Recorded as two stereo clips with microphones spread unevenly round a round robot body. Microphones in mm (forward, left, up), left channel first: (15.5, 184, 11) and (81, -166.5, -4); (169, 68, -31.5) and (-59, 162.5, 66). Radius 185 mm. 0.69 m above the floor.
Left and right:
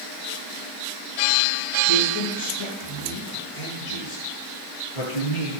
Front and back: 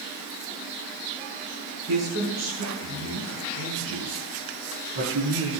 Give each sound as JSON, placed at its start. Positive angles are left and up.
{"t": 1.9, "sound": "a man speaking", "azimuth_deg": 140, "distance_m": 7.0}